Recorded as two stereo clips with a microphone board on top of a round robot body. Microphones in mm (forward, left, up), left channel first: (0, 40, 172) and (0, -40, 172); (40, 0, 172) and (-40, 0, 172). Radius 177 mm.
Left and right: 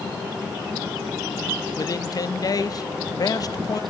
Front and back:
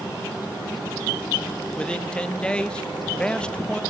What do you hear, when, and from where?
1.8 s a man speaking: 75° left, 1.6 m